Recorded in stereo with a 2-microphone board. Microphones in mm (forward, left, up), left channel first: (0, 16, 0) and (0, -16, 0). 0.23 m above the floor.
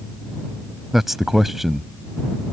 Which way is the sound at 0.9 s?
10° right (ahead or behind).